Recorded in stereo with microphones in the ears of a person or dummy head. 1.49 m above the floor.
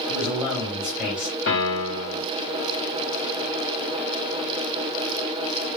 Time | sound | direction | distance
0.1 | a man speaking | 10° right (ahead or behind) | 1.3 m
1.5 | a piano | 75° left (ahead or behind) | 1.7 m